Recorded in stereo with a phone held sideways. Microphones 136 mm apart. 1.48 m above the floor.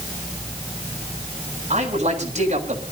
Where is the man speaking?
60° right (ahead or behind), 7.5 m.